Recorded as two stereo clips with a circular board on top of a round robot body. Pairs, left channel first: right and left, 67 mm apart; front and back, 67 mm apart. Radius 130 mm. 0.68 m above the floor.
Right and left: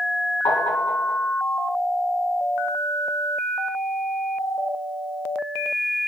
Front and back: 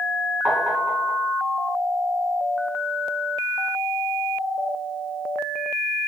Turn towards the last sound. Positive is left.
turn(degrees=-110)